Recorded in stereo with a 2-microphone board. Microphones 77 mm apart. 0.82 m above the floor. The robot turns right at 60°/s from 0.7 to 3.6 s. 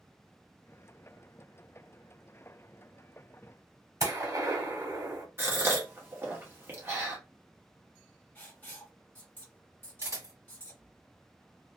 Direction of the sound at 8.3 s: 25° left (ahead or behind).